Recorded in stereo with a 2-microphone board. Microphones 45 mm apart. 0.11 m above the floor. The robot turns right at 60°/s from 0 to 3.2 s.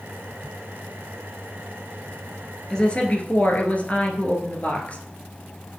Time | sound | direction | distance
2.7 | a woman speaking | 20° left | 1.6 m